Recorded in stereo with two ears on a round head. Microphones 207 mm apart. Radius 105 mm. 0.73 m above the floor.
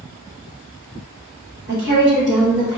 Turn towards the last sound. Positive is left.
turn(degrees=-5)  # may be behind; listen again after turning